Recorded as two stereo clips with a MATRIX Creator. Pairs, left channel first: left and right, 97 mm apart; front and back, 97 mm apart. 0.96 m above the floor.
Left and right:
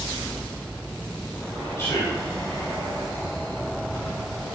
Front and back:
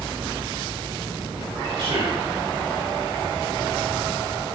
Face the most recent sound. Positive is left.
turn(degrees=150)